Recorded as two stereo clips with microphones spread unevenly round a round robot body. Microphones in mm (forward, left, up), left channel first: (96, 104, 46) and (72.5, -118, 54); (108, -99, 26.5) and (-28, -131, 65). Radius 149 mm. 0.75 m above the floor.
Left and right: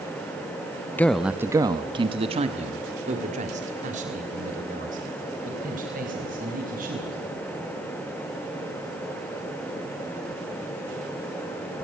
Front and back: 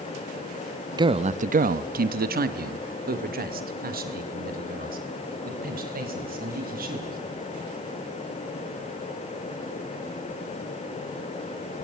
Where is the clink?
No clink in this recording.